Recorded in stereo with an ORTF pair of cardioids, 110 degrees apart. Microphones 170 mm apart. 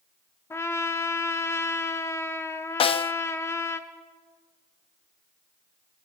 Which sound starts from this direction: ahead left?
A snare drum, at 2.8 s.